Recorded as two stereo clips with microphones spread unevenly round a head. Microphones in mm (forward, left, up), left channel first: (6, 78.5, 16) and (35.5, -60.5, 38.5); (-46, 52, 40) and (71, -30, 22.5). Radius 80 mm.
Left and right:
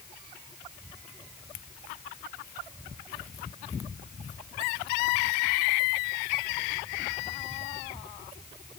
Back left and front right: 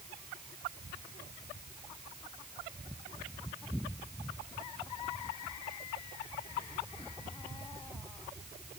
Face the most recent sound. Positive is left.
No sound to turn to.